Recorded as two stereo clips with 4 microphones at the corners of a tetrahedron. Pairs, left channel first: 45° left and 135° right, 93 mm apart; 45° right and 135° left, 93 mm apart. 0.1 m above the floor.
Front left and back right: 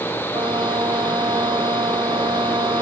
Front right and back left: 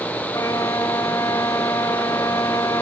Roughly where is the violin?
Right.